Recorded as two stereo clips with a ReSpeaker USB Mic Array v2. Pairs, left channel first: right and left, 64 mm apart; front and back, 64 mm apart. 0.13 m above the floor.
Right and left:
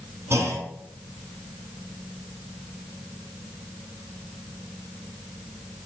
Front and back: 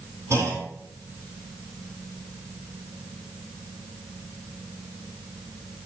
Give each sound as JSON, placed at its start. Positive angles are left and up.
{"t": 0.3, "sound": "a clunk", "azimuth_deg": 140, "distance_m": 2.5}